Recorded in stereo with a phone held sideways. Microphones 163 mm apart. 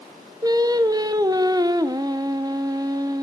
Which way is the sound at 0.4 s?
25° right (ahead or behind).